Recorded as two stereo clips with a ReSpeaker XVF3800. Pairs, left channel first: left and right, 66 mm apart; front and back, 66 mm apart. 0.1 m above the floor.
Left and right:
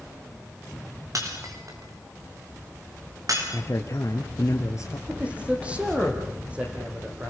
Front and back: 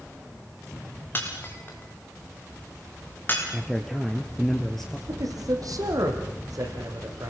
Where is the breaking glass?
60° right, 6.5 m.